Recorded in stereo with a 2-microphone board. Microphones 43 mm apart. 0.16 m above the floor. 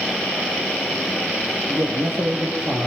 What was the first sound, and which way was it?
A man speaking, 60° right (ahead or behind).